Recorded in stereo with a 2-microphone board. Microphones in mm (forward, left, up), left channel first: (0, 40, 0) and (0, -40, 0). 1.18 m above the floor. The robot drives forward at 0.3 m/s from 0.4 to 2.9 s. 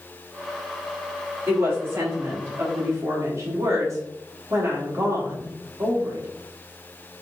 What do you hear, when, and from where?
1.5 s a woman speaking: 30° right (ahead or behind), 2 m; by 6.3 s 40° right (ahead or behind), 1.9 m